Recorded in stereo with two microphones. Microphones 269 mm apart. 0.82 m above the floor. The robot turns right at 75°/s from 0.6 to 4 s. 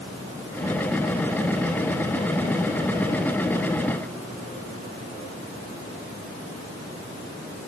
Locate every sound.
Only background noise.